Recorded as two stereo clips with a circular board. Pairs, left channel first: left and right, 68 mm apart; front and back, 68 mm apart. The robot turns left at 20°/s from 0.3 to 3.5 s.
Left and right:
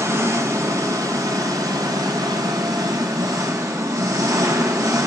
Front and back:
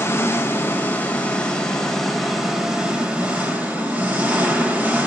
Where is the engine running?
55° right, 1.5 m; by 5.1 s 115° right, 1.5 m.